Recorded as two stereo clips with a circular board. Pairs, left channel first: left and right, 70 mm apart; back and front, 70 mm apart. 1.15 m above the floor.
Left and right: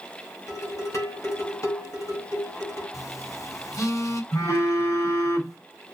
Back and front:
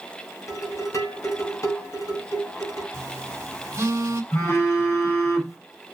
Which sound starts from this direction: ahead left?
A phone buzzing, at 2.9 s.